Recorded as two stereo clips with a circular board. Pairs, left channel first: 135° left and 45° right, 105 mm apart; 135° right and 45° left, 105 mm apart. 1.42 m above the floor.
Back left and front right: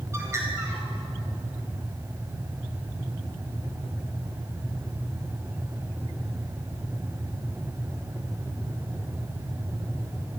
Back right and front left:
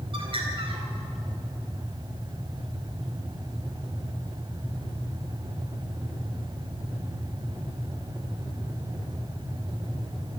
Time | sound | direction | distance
0.1 | a bird | 15° left | 4 m